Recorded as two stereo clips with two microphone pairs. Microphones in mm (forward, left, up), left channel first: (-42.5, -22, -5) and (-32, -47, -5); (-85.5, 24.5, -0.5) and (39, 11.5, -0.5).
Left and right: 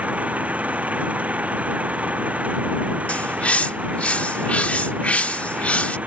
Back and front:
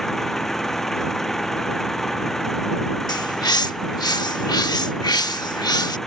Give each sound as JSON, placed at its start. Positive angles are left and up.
{"t": 0.0, "sound": "an engine running", "azimuth_deg": -100}
{"t": 3.1, "sound": "a bird", "azimuth_deg": 125}